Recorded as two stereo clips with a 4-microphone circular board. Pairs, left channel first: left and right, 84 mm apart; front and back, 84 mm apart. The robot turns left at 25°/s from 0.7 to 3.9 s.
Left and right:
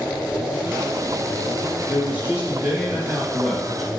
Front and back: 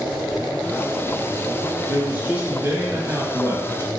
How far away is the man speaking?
About 1.1 m.